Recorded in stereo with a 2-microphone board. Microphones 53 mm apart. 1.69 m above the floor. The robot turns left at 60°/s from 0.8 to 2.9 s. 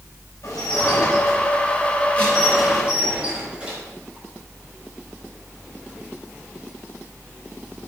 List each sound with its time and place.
0.4 s dishes clattering: 105° left, 5 m; by 3.8 s 20° right, 5 m